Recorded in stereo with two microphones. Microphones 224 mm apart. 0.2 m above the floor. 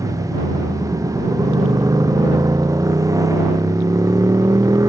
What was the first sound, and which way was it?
A motorcycle, 15° right (ahead or behind).